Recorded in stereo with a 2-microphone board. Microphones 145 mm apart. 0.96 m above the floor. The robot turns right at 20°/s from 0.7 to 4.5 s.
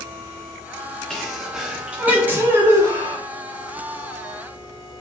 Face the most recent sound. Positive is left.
turn(degrees=-115)